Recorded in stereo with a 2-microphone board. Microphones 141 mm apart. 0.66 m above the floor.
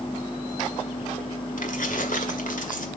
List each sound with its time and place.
1.6 s keys jangling: 70° left (ahead or behind), 1.7 m